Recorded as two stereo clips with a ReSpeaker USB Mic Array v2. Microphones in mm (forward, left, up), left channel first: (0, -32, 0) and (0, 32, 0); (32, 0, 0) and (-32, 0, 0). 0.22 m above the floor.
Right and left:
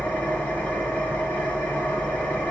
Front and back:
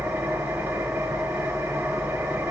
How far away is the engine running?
About 1.2 m.